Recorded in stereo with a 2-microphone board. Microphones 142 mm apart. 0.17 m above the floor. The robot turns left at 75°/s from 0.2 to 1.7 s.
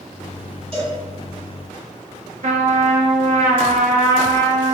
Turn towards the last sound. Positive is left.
turn(degrees=-65)  # may be behind; listen again after turning